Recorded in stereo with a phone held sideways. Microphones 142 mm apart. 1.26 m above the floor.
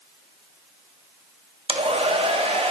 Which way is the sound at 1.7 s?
40° right (ahead or behind).